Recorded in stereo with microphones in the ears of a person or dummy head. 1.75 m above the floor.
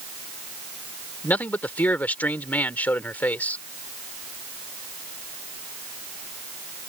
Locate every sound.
1.2 s a man speaking: 15° left (ahead or behind)